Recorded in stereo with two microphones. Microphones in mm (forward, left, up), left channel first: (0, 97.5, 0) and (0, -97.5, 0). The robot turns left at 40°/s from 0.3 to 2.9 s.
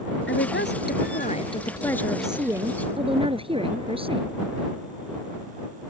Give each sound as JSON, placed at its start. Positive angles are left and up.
{"t": 0.3, "sound": "a woman speaking", "azimuth_deg": 75}